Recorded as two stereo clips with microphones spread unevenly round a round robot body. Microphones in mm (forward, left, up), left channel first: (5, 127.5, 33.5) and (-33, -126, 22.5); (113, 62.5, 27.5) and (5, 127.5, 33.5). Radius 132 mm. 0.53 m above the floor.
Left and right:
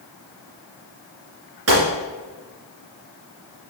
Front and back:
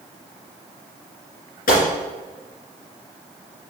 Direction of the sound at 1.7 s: 60° right.